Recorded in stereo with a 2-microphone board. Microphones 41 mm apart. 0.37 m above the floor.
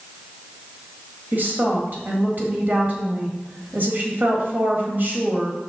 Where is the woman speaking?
50° right (ahead or behind), 1.6 m.